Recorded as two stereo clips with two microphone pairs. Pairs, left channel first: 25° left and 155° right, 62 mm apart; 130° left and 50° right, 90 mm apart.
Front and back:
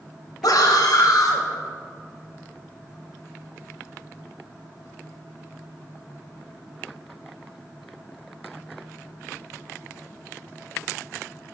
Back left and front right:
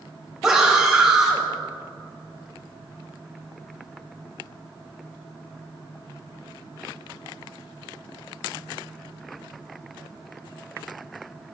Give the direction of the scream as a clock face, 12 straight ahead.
11 o'clock.